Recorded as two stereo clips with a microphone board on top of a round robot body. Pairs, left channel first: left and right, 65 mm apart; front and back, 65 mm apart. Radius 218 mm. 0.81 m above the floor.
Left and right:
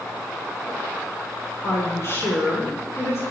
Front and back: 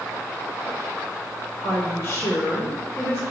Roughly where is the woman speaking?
Ahead left.